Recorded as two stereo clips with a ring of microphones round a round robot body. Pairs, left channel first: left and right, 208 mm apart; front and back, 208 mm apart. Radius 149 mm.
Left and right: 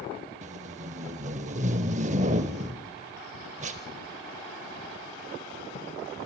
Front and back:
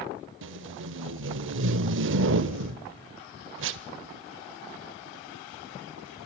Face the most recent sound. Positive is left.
turn(degrees=-150)